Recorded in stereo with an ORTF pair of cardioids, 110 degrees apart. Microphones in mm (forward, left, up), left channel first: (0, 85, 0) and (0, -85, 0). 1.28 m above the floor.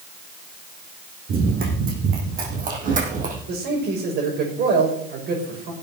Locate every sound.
1.3 s running footsteps: 60° right, 4.5 m; by 3.4 s 50° right, 4 m
3.5 s a man speaking: 65° right, 5.5 m